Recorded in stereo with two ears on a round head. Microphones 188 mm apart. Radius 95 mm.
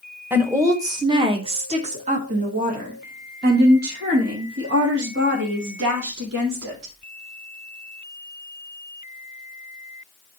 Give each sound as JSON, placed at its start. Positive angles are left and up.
{"t": 0.3, "sound": "a woman speaking", "side_deg": -10, "distance_m": 1.5}